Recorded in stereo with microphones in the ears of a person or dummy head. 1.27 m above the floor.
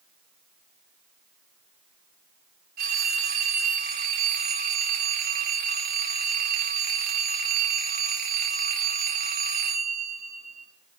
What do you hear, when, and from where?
2.8 s a phone ringing: 55° right (ahead or behind), 1.0 m